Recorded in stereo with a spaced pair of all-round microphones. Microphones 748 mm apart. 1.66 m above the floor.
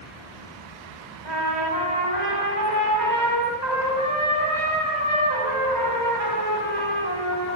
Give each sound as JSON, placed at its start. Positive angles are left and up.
{"t": 1.2, "sound": "a trumpet", "side_deg": -70, "distance_m": 6.0}